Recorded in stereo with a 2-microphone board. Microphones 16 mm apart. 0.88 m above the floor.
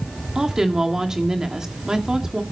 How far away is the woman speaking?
About 1.8 m.